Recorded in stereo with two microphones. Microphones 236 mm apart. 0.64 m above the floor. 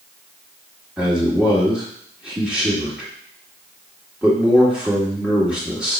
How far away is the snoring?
I don't hear snoring.